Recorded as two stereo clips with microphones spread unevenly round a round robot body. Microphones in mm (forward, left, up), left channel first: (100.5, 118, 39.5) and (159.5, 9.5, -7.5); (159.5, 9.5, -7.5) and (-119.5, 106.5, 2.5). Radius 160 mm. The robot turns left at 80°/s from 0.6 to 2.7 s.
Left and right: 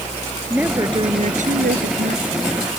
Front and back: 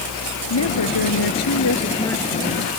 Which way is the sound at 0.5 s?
15° left.